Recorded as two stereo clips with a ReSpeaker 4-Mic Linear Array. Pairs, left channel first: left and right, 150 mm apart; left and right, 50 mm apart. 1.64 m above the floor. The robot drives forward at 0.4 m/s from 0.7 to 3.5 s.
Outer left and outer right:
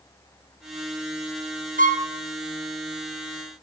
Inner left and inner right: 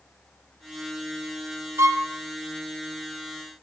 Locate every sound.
1.8 s a violin: 65° right (ahead or behind), 0.6 m; by 2.1 s 55° right (ahead or behind), 0.7 m